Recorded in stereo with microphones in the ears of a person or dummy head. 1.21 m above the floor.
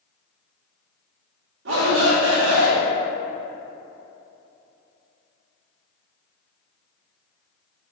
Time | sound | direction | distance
1.6 | a shout | 70° right (ahead or behind) | 2 m